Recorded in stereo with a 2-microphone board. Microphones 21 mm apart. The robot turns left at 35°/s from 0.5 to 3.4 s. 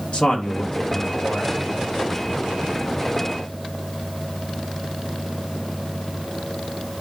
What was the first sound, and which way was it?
A man speaking, 55° left.